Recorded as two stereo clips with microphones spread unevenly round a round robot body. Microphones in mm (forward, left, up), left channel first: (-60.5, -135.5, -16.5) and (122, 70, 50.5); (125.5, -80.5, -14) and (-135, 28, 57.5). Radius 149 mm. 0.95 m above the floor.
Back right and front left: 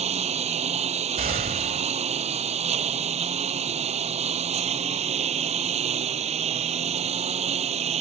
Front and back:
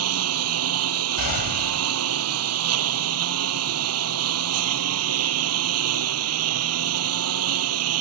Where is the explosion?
10° right.